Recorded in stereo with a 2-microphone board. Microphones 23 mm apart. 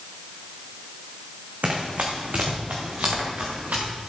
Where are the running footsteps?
70° right (ahead or behind), 2.5 m; by 3.9 s 80° right, 4 m.